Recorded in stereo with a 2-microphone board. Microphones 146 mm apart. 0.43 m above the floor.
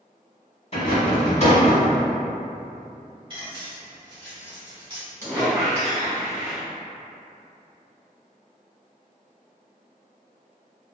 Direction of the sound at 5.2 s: 20° right (ahead or behind).